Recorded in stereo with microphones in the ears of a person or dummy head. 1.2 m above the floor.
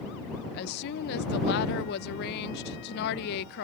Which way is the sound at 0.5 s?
60° left (ahead or behind).